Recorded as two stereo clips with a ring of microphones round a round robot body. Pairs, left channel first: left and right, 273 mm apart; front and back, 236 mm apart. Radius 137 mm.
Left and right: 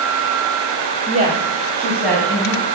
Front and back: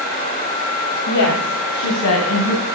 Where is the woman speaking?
30° right, 2 m; by 2.6 s 5° left, 3.5 m.